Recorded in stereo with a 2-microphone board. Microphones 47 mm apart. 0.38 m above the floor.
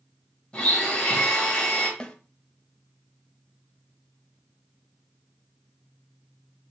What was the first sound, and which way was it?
A blender, 25° left (ahead or behind).